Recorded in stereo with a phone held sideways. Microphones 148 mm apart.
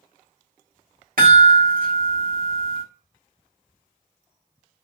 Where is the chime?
70° right (ahead or behind), 1.3 m.